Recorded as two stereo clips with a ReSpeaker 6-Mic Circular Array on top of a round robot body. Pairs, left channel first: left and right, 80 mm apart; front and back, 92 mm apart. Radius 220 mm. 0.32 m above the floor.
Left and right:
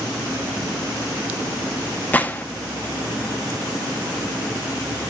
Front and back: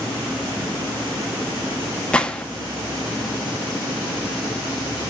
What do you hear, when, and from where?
2.1 s a gunshot: 60° left, 1.2 m